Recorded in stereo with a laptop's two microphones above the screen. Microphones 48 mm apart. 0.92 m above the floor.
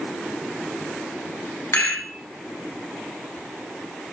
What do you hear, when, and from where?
1.7 s a rattle: 70° left (ahead or behind), 1.2 m